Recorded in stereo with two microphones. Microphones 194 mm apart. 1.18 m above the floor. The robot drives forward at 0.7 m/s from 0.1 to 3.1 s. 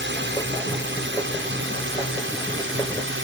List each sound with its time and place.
0.0 s a drone: 65° right (ahead or behind); by 3.2 s 75° right (ahead or behind)